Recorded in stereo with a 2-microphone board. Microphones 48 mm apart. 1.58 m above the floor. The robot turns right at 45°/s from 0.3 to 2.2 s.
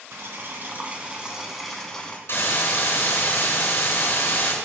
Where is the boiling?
60° right, 3 m; by 2.2 s 25° left, 3 m.